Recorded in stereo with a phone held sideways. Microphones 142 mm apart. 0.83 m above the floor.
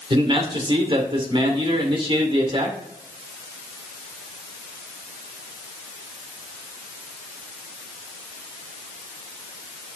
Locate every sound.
0.1 s a man speaking: 35° right (ahead or behind), 2 m